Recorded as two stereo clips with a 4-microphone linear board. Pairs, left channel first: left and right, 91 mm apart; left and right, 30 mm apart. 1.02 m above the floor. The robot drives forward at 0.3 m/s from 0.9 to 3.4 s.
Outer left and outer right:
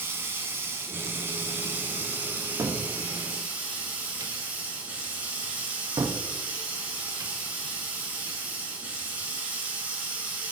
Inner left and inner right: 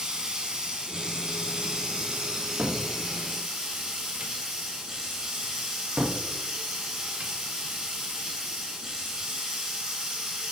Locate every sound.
0.0 s running water: 25° right (ahead or behind), 1.0 m; by 10.5 s 20° right (ahead or behind), 1.3 m
2.6 s a cupboard door: 35° right (ahead or behind), 0.6 m